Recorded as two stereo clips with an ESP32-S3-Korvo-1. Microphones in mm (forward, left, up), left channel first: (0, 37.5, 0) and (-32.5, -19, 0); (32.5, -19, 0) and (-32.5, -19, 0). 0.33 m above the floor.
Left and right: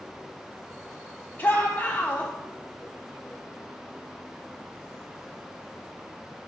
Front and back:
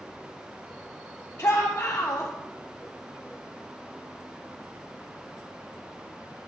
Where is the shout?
20° left, 1.2 m.